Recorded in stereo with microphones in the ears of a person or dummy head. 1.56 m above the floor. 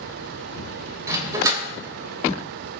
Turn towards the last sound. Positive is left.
turn(degrees=-20)  # may be behind; listen again after turning